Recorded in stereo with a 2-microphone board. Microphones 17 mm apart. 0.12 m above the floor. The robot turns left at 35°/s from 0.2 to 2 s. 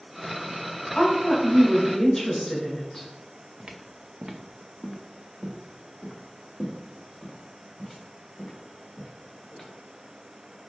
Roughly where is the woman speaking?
Ahead left.